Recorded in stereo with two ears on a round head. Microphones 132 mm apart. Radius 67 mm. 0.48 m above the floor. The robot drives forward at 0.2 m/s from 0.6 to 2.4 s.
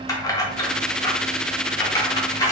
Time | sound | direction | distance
0.1 | keys jangling | 25° left (ahead or behind) | 0.8 m